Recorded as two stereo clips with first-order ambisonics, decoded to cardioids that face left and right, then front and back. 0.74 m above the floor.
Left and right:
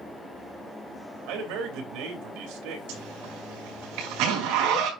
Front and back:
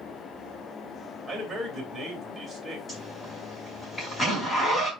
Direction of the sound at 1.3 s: 100° right.